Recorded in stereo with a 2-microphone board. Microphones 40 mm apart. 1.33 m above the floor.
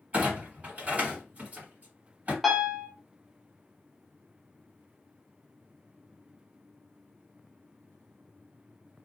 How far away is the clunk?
About 2 m.